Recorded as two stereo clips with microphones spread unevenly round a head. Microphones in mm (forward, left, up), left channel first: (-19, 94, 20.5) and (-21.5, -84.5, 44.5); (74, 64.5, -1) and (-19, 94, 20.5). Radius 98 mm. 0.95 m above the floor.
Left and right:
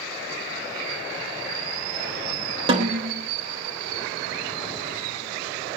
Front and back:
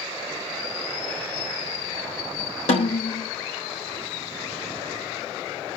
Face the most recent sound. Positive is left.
turn(degrees=-25)